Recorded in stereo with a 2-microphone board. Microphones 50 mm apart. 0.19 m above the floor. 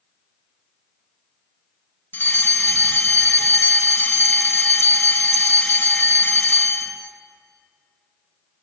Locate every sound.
2.1 s a fire alarm: 40° left (ahead or behind), 2.5 m